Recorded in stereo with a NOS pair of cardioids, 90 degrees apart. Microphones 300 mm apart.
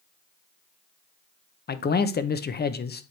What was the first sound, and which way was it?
A man speaking, 35° left.